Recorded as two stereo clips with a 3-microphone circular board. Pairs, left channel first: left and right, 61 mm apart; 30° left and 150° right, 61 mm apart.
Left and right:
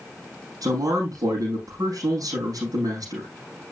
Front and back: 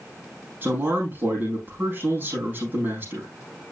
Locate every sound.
0.6 s a man speaking: 95° right, 5 m